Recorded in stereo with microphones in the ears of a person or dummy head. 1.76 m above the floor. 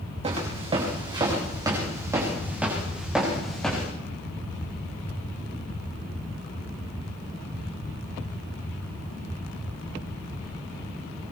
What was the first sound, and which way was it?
Footsteps, 35° right (ahead or behind).